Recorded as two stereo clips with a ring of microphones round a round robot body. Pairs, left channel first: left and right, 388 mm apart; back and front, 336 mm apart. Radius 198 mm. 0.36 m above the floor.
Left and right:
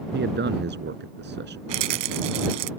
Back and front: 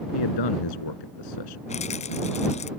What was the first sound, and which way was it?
A man speaking, 155° right.